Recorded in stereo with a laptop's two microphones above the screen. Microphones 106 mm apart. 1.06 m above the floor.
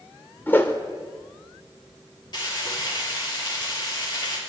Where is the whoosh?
20° left (ahead or behind), 2 m.